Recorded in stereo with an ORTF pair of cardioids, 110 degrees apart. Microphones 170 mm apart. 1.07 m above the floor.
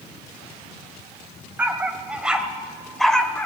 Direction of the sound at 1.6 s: 10° right.